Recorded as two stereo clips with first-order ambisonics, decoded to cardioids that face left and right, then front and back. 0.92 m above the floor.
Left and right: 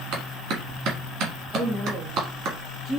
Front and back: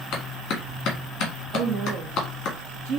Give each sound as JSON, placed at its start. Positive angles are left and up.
{"t": 0.1, "sound": "a clap", "azimuth_deg": -50, "distance_m": 1.5}
{"t": 1.5, "sound": "a woman speaking", "azimuth_deg": -170, "distance_m": 1.6}